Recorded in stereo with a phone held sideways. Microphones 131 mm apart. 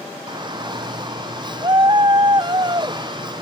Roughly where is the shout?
Right.